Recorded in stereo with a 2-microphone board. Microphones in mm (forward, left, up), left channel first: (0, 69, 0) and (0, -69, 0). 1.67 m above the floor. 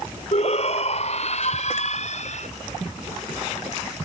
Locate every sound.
0.3 s a shout: 50° left (ahead or behind); by 2.5 s 55° left (ahead or behind)